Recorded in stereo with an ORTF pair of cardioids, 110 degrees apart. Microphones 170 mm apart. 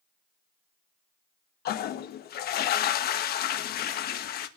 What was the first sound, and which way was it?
A toilet flushing, 60° left.